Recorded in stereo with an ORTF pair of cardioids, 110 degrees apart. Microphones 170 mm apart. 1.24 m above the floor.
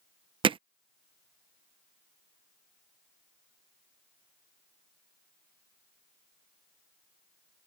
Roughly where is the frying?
I don't hear frying.